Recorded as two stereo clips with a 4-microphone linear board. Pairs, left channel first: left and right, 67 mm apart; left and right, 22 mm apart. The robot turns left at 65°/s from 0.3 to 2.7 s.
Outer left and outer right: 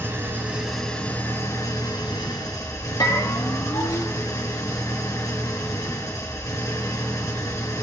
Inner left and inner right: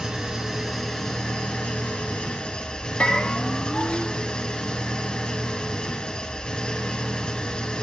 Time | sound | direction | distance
0.0 | an engine running | 150° right | 4 m
3.0 | a bell | 85° left | 2.5 m